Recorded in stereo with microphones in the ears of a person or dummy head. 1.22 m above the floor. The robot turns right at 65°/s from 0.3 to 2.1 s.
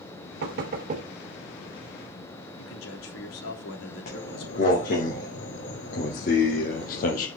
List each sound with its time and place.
0.4 s knocking: 80° right, 2.5 m; by 1.1 s 35° right (ahead or behind), 2.5 m
2.6 s a man speaking: 75° left (ahead or behind), 3 m
4.1 s footsteps: 45° left (ahead or behind), 5 m; by 7.3 s 50° left (ahead or behind), 2.5 m